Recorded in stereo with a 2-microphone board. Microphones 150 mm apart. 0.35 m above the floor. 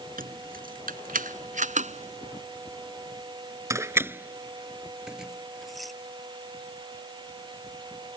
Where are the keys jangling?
75° right (ahead or behind); by 5.9 s centre (ahead or behind).